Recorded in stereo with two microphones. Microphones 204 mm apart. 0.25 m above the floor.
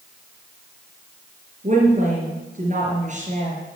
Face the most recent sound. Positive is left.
turn(degrees=-40)  # may be behind; listen again after turning